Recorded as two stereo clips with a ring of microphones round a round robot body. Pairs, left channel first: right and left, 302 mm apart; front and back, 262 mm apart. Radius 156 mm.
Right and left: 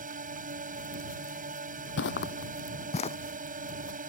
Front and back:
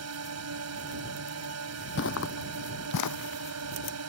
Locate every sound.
0.0 s a drone: 155° left
2.0 s footsteps: 45° right; by 3.2 s 20° right